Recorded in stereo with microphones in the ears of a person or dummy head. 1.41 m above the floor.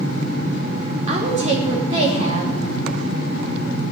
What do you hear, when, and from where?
1.1 s a woman speaking: 40° right (ahead or behind), 3 m